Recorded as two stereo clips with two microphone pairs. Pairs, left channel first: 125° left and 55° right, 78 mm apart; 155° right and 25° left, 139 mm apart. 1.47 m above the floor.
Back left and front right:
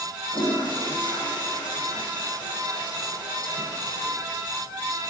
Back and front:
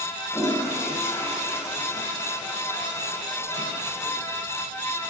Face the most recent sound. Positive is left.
turn(degrees=140)